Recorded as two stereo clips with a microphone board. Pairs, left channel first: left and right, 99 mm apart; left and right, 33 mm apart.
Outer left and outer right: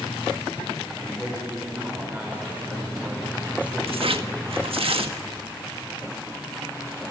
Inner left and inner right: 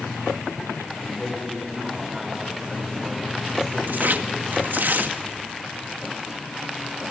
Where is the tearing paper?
70° right (ahead or behind), 1.6 m.